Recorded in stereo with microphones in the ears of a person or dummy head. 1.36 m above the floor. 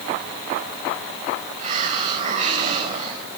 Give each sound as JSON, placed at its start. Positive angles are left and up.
{"t": 1.6, "sound": "a hiss", "side_deg": -35, "distance_m": 5.0}